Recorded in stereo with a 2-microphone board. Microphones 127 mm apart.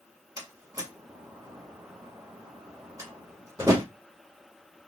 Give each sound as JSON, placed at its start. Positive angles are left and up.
{"t": 0.4, "sound": "a door slam", "side_deg": -25, "distance_m": 1.1}